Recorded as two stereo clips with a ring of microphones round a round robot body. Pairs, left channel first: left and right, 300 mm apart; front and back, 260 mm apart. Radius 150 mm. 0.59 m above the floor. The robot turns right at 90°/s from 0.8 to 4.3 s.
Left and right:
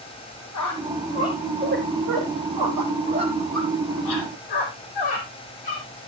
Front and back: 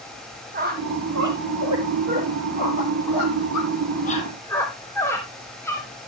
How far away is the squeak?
About 3 m.